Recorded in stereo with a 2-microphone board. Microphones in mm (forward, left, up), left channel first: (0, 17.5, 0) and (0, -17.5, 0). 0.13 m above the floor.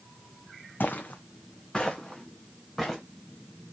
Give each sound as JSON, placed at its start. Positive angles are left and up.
{"t": 0.8, "sound": "footsteps", "side_deg": 70, "distance_m": 0.6}